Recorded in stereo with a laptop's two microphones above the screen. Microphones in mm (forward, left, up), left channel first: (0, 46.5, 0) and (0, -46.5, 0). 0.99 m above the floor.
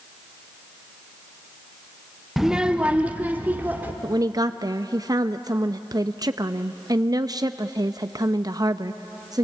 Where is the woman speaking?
40° right (ahead or behind), 0.6 m.